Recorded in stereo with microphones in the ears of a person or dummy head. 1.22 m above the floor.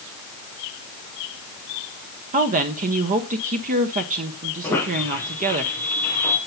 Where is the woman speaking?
30° right (ahead or behind), 0.7 m.